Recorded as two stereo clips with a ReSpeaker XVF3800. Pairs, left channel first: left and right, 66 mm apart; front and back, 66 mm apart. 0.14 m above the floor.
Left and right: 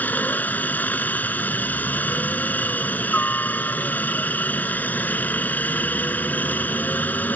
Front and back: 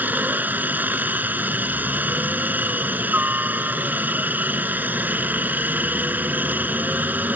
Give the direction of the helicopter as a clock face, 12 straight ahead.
7 o'clock.